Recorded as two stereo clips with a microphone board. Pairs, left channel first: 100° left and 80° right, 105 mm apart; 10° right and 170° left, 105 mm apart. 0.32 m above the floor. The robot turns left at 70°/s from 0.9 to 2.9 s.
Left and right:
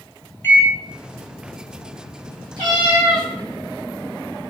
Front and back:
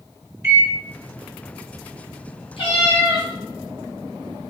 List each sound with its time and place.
0.4 s a microwave: 135° left, 0.7 m
2.6 s a cat meowing: 35° right, 2 m; by 3.3 s 60° right, 2 m